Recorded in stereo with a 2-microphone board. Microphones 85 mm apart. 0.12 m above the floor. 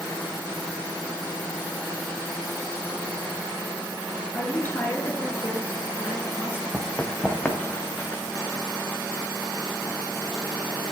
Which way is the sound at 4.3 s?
25° left (ahead or behind).